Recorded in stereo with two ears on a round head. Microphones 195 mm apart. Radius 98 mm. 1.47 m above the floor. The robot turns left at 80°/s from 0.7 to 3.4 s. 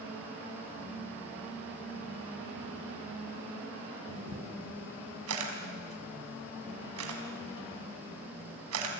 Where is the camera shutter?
75° right (ahead or behind), 5 m.